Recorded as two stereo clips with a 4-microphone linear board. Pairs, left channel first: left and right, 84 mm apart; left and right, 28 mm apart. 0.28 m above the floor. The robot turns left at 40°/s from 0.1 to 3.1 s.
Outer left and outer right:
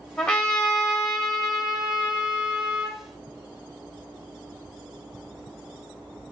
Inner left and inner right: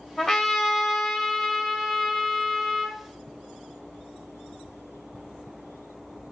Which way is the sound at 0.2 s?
10° left (ahead or behind).